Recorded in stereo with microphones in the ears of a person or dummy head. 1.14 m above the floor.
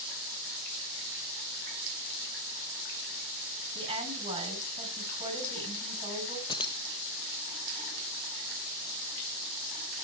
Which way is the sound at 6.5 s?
20° left (ahead or behind).